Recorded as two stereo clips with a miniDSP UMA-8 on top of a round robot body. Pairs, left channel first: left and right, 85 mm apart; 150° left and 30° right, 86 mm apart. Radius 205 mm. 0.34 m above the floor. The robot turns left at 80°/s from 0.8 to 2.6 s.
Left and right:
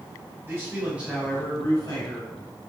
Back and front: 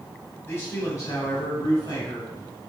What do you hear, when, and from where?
0.4 s a man speaking: 150° right, 2.5 m; by 2.3 s 90° left, 2.5 m